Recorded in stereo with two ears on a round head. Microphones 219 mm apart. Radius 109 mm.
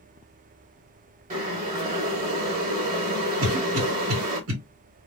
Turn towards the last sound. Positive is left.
turn(degrees=-60)  # may be behind; listen again after turning